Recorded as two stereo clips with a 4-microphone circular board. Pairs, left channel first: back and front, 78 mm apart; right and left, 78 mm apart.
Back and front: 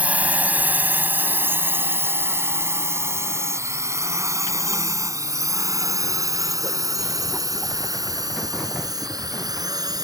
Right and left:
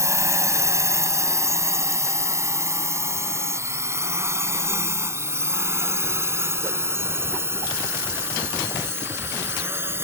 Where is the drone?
65° left; by 10.1 s 35° left.